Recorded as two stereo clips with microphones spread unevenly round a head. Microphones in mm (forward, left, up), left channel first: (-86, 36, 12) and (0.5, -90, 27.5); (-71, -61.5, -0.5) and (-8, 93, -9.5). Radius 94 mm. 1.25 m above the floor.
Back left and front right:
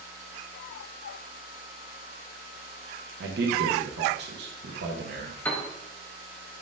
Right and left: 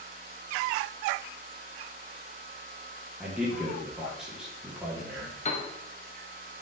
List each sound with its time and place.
3.2 s a man speaking: 20° right, 0.6 m
5.5 s a piano: 155° right, 0.7 m